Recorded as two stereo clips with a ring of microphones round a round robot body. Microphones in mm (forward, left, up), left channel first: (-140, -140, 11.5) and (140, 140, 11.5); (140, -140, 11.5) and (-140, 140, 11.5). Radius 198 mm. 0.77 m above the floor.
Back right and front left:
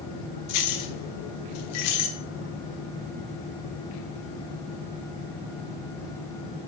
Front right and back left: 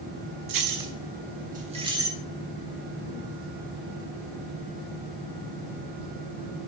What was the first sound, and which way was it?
Keys jangling, 175° left.